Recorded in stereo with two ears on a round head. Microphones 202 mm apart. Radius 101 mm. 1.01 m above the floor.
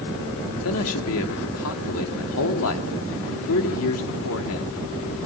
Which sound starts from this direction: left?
A man speaking, at 0.6 s.